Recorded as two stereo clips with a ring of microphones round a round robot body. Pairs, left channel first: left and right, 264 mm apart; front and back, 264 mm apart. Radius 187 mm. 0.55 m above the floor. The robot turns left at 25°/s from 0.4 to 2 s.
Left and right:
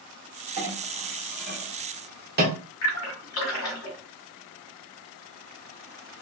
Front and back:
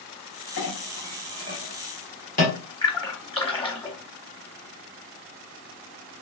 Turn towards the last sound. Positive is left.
turn(degrees=70)